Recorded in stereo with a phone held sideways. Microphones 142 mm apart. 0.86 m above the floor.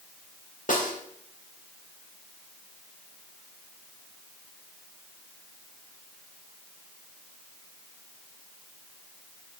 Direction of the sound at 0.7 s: 65° left (ahead or behind).